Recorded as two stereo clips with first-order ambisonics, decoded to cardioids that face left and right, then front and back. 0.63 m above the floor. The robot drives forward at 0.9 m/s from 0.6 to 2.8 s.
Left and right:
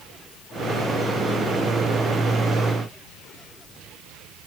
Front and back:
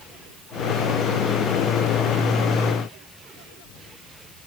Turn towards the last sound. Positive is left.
No sound to turn to.